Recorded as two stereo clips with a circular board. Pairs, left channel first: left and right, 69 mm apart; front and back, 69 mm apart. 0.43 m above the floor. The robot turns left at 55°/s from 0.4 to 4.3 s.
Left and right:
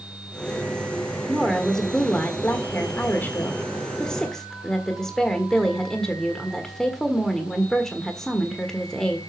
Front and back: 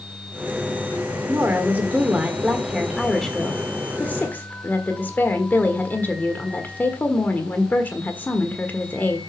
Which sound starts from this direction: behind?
A woman speaking, at 1.3 s.